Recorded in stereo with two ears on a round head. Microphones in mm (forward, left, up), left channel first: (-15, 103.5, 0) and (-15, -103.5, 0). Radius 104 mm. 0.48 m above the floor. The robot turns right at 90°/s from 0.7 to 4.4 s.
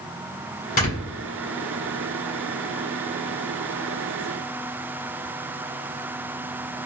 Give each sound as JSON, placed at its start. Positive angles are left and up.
{"t": 0.8, "sound": "snoring", "side_deg": 40, "distance_m": 1.7}